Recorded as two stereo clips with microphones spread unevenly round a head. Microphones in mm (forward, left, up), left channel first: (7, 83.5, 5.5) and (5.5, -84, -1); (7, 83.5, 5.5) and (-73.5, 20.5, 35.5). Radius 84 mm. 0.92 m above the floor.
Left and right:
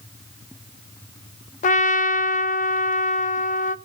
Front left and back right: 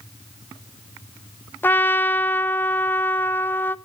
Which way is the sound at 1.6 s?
75° left.